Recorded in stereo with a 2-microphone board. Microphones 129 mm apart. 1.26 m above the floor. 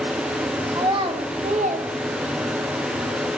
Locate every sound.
0.7 s a child speaking: 30° right (ahead or behind), 1.2 m; by 2.7 s 60° right (ahead or behind), 1.1 m